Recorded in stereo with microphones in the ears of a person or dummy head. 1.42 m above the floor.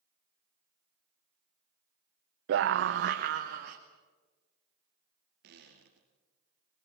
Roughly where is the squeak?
Right.